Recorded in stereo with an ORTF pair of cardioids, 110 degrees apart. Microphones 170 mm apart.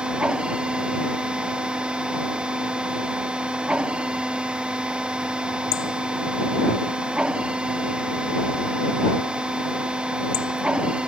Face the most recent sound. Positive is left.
turn(degrees=-5)